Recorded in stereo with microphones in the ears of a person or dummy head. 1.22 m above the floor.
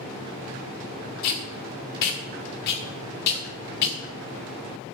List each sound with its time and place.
1.2 s tape being pulled: 55° left (ahead or behind), 1.6 m